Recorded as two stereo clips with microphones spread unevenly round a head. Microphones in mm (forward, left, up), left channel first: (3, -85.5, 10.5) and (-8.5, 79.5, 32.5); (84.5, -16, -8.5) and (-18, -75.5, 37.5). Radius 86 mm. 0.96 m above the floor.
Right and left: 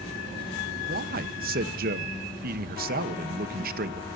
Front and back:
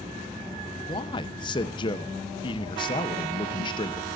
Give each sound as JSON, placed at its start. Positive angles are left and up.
{"t": 0.9, "sound": "a man speaking", "azimuth_deg": 60, "distance_m": 0.8}